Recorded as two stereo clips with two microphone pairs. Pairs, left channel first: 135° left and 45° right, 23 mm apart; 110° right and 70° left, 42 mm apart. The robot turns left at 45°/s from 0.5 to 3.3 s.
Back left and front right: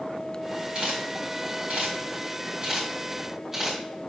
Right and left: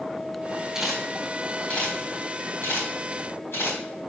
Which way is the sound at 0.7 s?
5° right.